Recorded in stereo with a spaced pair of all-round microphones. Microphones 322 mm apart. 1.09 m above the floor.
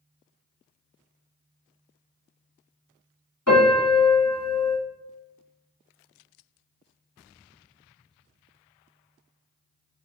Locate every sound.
3.5 s a piano: 60° left (ahead or behind), 1.8 m